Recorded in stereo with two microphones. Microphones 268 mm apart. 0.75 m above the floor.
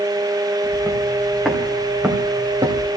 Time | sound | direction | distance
0.6 | footsteps | 15° left (ahead or behind) | 3.5 m